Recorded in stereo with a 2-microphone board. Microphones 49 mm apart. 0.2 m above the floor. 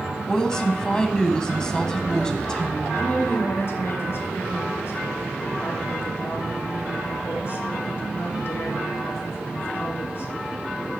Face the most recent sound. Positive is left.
turn(degrees=55)  # may be behind; listen again after turning